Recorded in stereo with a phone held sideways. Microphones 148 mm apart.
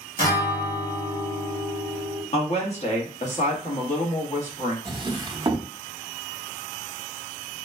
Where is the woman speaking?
50° left (ahead or behind), 1.2 m.